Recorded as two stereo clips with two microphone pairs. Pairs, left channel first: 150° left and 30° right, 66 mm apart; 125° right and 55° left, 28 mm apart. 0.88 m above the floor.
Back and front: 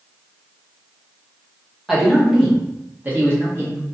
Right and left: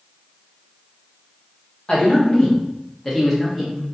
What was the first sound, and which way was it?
A man speaking, 120° right.